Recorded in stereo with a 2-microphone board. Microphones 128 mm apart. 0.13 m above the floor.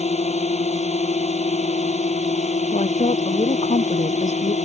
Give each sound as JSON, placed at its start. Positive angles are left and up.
{"t": 0.0, "sound": "a drone", "side_deg": 60}
{"t": 2.7, "sound": "a woman speaking", "side_deg": 65}